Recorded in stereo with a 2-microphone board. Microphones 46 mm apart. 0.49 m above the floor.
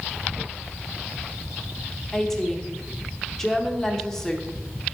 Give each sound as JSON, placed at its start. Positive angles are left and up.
{"t": 2.1, "sound": "a woman speaking", "side_deg": 10, "distance_m": 0.9}